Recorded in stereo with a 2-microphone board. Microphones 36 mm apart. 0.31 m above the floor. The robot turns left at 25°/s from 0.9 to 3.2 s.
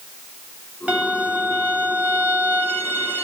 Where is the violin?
45° right, 0.8 m; by 3.2 s 100° right, 0.8 m.